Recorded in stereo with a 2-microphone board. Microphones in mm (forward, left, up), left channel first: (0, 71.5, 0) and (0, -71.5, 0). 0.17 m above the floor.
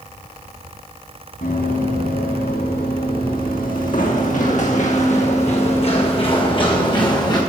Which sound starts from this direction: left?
Running footsteps, at 1.4 s.